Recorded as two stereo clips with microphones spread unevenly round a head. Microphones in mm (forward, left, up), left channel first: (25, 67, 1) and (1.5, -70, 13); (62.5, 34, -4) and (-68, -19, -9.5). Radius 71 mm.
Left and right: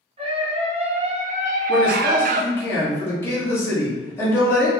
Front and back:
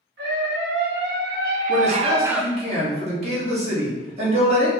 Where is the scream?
155° right, 1.6 m; by 2.5 s 65° right, 0.5 m.